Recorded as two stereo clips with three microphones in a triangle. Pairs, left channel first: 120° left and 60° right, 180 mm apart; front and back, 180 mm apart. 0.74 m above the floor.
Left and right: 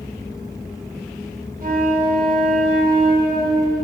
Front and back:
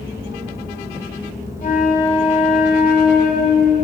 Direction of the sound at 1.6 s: 30° right.